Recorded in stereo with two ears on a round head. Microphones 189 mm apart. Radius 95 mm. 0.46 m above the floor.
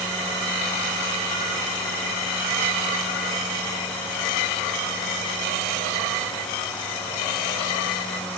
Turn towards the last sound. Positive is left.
No sound to turn to.